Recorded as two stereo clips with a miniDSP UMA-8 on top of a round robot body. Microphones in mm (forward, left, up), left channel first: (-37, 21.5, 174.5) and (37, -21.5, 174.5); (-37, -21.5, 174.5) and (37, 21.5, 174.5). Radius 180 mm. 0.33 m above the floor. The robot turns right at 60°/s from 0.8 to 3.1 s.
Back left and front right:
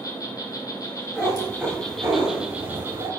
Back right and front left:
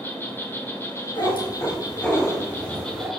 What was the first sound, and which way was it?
An insect, 165° left.